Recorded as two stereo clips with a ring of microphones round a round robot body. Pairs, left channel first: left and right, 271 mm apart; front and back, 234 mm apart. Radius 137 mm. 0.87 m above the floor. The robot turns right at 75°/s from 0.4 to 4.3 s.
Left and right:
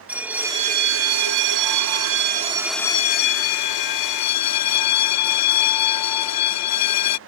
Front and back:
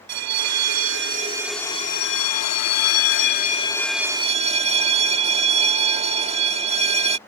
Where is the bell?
175° right; by 7.2 s 120° left.